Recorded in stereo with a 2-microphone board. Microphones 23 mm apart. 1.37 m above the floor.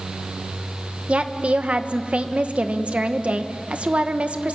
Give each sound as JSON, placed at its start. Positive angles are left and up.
{"t": 1.1, "sound": "a woman speaking", "side_deg": -60, "distance_m": 1.3}